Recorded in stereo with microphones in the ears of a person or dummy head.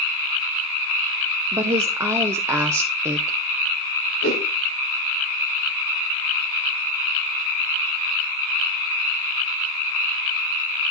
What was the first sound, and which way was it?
A woman speaking, 15° right (ahead or behind).